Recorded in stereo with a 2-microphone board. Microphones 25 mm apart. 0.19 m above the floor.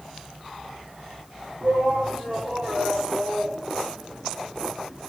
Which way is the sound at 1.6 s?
65° right (ahead or behind).